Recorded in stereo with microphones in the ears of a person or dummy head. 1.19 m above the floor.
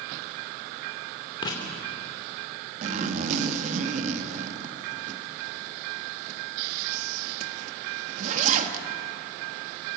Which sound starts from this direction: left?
Writing, at 1.4 s.